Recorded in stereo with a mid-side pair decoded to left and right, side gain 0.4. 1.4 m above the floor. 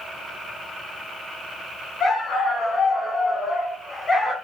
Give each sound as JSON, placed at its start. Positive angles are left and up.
{"t": 2.0, "sound": "a dog barking", "azimuth_deg": 60, "distance_m": 4.5}